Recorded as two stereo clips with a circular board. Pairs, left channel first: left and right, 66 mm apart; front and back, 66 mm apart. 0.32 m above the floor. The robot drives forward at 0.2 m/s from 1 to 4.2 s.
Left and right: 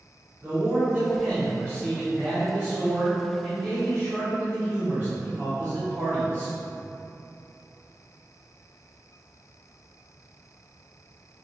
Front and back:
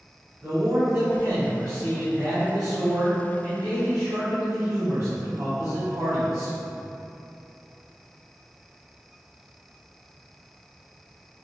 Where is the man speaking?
155° right, 2.0 m; by 6.5 s 165° right, 2.5 m.